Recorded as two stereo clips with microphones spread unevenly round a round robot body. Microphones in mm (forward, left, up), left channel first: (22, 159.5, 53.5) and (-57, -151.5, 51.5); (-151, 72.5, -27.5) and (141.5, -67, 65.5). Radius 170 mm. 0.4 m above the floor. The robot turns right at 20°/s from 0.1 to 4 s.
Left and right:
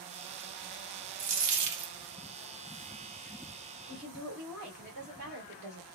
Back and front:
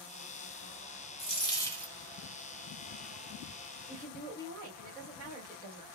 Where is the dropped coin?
140° right, 0.8 m; by 1.9 s 125° right, 0.8 m.